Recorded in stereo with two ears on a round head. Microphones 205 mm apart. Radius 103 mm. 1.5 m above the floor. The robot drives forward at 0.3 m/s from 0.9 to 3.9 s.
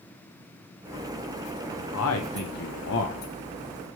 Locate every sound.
1.9 s a man speaking: 65° left (ahead or behind), 0.9 m; by 3.2 s 60° left (ahead or behind), 1.0 m